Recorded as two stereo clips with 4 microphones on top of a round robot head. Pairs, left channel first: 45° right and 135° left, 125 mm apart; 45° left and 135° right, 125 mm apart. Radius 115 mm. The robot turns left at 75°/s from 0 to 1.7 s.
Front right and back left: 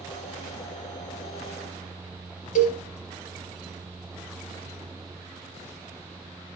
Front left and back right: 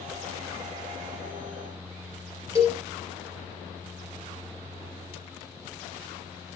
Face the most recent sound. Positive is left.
turn(degrees=-65)